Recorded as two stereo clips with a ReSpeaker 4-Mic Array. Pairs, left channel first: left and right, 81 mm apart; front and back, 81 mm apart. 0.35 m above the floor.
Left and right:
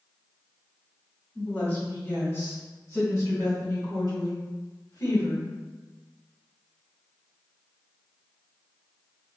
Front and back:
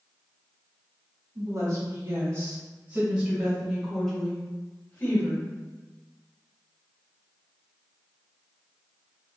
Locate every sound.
1.4 s a woman speaking: 150° left, 1.6 m; by 5.5 s 60° left, 1.8 m